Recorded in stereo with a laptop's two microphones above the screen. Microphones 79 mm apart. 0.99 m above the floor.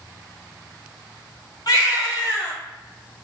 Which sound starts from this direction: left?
A baby crying, at 1.7 s.